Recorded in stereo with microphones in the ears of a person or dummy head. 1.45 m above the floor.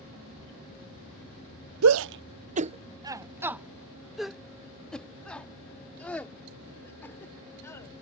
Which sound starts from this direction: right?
A shout, at 1.8 s.